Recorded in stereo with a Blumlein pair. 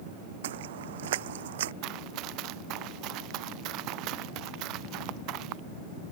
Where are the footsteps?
55° right.